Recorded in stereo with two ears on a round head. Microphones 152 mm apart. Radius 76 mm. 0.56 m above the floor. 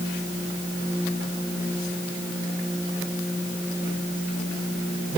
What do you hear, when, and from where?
Only background noise.